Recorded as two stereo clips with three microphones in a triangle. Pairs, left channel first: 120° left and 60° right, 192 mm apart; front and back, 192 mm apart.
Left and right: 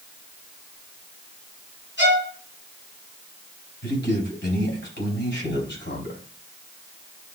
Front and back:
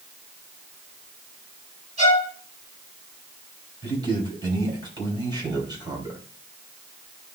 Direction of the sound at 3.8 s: 110° left.